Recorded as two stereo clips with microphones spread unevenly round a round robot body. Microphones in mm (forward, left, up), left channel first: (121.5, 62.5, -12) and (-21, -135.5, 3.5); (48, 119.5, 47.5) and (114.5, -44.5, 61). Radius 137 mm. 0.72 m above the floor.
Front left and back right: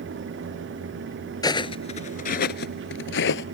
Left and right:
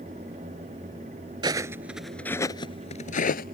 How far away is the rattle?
No rattle in this recording.